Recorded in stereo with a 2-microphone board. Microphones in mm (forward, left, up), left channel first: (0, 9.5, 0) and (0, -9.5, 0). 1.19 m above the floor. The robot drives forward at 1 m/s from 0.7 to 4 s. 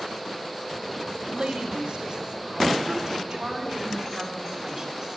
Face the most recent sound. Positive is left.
turn(degrees=-20)  # may be behind; listen again after turning